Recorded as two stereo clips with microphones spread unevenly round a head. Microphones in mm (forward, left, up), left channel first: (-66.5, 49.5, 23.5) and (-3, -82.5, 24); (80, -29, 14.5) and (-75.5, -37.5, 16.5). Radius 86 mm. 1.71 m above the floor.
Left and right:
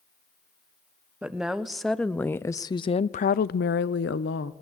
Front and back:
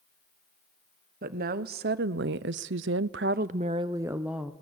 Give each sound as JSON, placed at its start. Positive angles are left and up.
{"t": 1.2, "sound": "a woman speaking", "azimuth_deg": -145, "distance_m": 1.3}